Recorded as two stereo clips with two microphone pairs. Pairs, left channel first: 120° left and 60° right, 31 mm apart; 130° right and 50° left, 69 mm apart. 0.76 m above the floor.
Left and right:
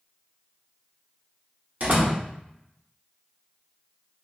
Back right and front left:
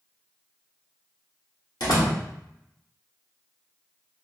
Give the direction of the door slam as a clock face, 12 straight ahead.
4 o'clock.